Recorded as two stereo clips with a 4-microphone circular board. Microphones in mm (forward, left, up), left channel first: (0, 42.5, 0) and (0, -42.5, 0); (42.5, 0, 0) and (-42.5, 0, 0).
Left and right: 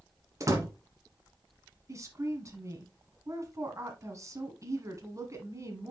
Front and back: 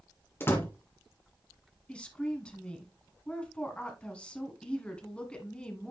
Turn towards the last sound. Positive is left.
turn(degrees=-70)